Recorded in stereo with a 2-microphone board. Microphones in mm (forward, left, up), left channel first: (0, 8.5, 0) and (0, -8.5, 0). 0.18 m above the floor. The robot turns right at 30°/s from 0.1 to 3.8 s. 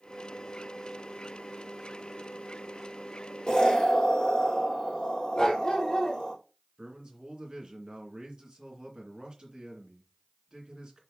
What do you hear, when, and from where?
3.5 s an explosion: 35° left (ahead or behind), 4 m; by 6.3 s 45° left (ahead or behind), 4 m
5.3 s a dog barking: 35° left (ahead or behind), 1.8 m
6.8 s a man speaking: 50° right (ahead or behind), 2.5 m